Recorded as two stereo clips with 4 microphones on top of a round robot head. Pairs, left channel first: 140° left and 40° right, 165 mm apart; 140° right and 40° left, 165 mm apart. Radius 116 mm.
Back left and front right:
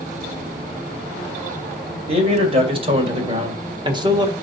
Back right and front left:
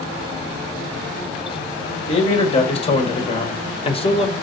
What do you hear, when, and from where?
2.1 s a man speaking: 90° right, 2.5 m; by 4.3 s 95° right, 1.4 m